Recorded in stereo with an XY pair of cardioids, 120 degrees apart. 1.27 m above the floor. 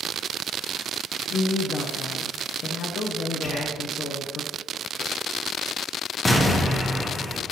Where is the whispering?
45° left, 1.8 m.